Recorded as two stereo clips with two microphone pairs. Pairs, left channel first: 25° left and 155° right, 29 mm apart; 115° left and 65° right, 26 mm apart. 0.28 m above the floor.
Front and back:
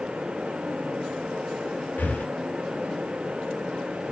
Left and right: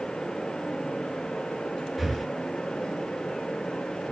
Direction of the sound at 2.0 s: 25° left.